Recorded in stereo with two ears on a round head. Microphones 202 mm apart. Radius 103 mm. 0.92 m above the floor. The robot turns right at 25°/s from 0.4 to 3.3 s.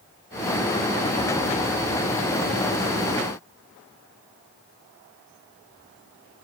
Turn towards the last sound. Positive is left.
No sound to turn to.